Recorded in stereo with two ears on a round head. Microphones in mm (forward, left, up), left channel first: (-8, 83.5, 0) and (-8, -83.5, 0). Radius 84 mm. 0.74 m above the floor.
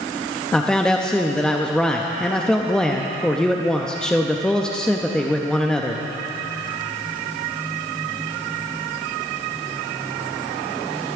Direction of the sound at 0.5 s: 5° left (ahead or behind).